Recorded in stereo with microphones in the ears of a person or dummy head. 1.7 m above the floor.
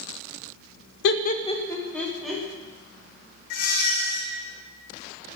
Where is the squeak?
55° left (ahead or behind), 1.1 m.